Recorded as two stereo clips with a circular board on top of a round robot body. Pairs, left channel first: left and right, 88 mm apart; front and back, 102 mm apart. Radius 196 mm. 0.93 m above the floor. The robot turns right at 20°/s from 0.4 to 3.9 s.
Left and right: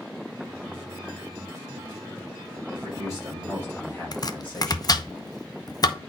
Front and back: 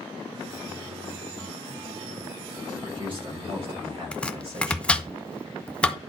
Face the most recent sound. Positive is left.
turn(degrees=75)